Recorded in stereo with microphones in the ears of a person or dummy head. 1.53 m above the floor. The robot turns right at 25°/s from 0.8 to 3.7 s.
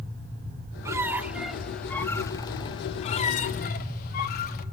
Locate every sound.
0.8 s a squeak: 20° right, 1.2 m; by 4.7 s 50° left, 1.2 m